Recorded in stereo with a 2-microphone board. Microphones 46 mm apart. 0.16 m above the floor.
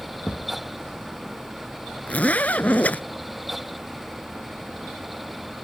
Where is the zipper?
35° left (ahead or behind).